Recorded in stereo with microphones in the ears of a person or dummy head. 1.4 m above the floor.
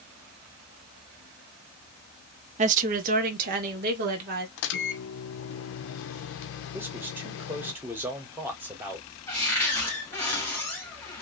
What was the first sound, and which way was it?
A woman speaking, 40° right (ahead or behind).